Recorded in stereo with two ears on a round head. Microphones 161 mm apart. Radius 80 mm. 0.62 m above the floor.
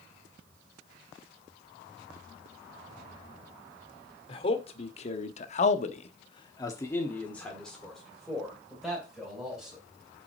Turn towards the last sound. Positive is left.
turn(degrees=-5)  # may be behind; listen again after turning